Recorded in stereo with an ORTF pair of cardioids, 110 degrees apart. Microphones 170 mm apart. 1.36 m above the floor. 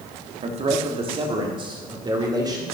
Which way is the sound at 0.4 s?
40° right.